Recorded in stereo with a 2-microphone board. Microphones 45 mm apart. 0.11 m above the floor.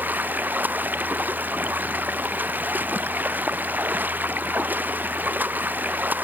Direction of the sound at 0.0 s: 45° right (ahead or behind).